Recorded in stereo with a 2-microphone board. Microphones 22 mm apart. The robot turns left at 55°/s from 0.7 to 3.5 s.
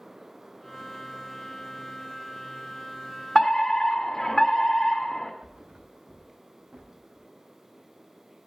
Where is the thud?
65° right (ahead or behind), 5.5 m.